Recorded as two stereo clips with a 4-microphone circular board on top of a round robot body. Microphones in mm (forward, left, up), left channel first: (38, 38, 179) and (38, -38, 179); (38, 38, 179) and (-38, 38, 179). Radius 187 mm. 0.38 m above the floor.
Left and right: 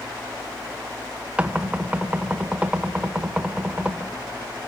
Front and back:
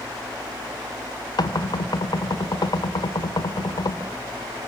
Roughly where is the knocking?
Ahead.